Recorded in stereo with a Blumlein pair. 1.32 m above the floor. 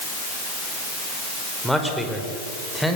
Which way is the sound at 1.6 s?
Straight ahead.